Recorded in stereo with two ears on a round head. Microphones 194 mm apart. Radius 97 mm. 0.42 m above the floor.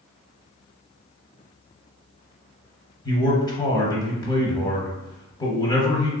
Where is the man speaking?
20° left (ahead or behind), 0.8 m.